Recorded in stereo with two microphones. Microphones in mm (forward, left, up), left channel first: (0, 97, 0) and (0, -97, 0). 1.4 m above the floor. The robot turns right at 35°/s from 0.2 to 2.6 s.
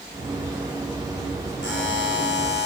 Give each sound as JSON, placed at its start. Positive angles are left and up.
{"t": 1.6, "sound": "a buzzer", "azimuth_deg": 75, "distance_m": 4.5}